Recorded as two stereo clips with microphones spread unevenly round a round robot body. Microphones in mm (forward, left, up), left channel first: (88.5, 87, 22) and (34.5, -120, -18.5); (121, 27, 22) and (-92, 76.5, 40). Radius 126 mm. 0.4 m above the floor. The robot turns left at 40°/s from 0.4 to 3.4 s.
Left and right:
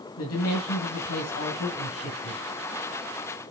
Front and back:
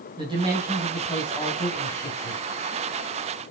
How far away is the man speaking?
About 3 m.